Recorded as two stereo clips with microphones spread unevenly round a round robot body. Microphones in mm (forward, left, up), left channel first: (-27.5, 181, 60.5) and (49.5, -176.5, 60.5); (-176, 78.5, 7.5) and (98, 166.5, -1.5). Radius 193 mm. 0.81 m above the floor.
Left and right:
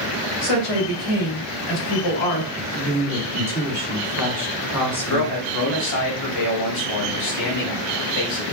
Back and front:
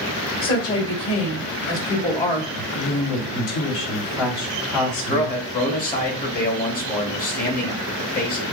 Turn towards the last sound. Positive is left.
turn(degrees=140)